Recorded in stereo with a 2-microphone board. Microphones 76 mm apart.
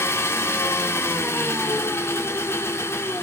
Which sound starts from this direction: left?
An engine running, at 0.0 s.